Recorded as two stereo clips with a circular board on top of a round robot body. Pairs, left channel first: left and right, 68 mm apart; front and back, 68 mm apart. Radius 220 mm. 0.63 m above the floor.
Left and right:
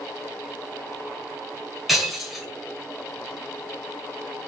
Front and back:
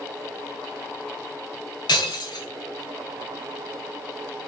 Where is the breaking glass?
Straight ahead, 1.1 m.